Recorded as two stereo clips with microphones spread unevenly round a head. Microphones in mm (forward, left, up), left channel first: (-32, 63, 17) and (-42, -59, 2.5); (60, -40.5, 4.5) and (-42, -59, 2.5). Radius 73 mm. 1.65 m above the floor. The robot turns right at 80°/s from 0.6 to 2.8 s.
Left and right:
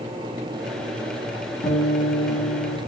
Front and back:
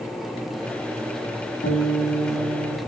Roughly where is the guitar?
Ahead left.